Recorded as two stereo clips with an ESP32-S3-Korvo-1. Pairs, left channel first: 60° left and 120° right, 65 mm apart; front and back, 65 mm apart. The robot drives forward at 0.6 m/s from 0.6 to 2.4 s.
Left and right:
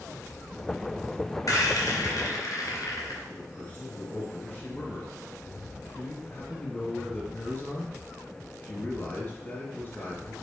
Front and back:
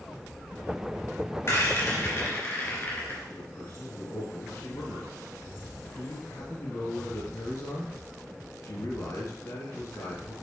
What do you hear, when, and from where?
1.5 s a rattle: 45° left, 3 m; by 3.2 s 55° left, 2.5 m
3.3 s a man speaking: 15° left, 1.9 m